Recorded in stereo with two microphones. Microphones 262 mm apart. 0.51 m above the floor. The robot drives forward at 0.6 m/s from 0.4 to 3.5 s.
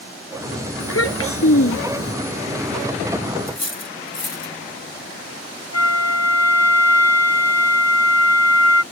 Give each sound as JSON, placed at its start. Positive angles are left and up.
{"t": 0.8, "sound": "a child speaking", "side_deg": 60}
{"t": 3.5, "sound": "cutlery clinking", "side_deg": 50}
{"t": 5.7, "sound": "a flute", "side_deg": 75}